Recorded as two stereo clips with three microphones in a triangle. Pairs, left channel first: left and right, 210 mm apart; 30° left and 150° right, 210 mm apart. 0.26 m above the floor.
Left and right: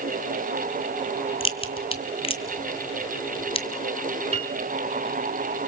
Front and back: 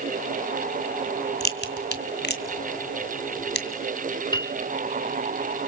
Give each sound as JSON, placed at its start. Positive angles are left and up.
{"t": 1.4, "sound": "a crack", "azimuth_deg": 35, "distance_m": 2.0}
{"t": 4.3, "sound": "a piano", "azimuth_deg": -35, "distance_m": 1.6}